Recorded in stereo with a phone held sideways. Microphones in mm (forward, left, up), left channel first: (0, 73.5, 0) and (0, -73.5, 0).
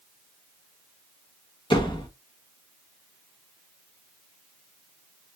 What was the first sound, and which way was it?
A door slam, 35° left (ahead or behind).